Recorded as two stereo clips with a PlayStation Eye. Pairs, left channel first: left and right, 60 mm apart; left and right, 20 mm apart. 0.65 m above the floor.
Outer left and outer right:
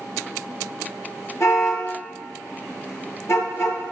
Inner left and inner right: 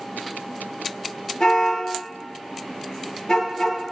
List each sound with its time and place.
1.4 s a car horn: 50° left (ahead or behind), 5.5 m